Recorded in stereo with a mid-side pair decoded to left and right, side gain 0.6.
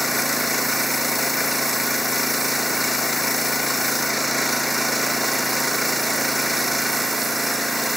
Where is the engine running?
Straight ahead.